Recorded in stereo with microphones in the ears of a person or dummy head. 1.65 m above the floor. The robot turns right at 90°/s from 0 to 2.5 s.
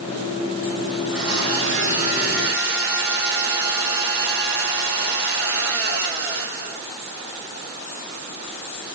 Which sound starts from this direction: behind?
A blender, at 1.0 s.